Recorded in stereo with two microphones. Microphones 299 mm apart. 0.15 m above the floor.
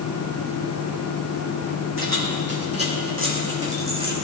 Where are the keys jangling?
45° right (ahead or behind), 5 m; by 4.1 s 15° right (ahead or behind), 5.5 m.